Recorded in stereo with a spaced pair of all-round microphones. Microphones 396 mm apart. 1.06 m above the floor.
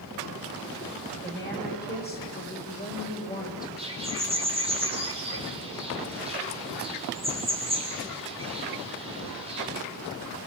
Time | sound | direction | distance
1.2 | a woman speaking | 25° left (ahead or behind) | 5.5 m
3.8 | a bird | 15° right (ahead or behind) | 4 m